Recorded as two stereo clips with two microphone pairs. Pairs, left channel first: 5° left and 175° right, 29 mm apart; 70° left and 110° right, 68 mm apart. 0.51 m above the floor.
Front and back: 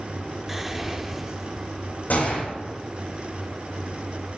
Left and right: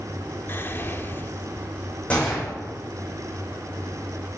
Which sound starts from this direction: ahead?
A gunshot, at 2.1 s.